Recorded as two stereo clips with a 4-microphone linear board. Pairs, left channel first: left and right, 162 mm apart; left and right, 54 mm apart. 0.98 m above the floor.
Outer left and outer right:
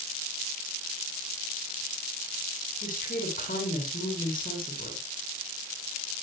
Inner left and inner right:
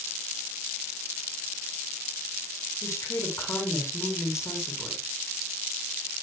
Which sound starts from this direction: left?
A woman speaking, at 2.8 s.